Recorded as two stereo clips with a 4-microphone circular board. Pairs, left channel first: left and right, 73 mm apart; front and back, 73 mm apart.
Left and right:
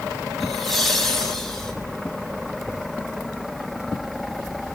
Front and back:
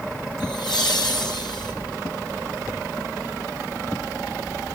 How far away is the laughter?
About 7 m.